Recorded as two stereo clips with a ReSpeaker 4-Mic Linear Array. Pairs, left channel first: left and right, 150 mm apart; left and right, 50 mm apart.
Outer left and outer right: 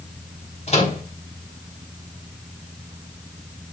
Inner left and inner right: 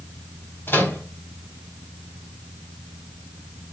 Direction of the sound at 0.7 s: 50° left (ahead or behind).